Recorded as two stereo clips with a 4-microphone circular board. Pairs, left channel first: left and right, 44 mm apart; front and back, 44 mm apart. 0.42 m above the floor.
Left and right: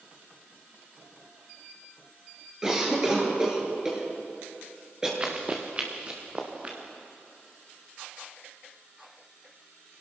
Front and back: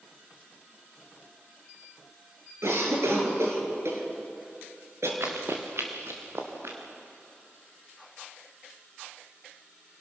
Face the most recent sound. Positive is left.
turn(degrees=-155)